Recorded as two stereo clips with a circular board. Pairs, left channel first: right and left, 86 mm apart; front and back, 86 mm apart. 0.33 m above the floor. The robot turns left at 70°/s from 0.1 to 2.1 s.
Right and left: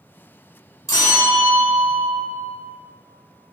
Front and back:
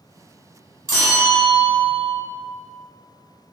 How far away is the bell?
About 0.9 m.